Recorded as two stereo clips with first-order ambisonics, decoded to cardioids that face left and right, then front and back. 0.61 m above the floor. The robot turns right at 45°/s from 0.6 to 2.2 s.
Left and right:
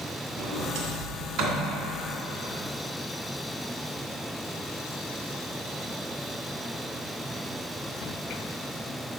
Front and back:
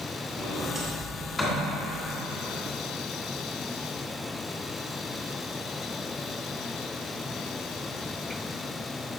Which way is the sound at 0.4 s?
125° right.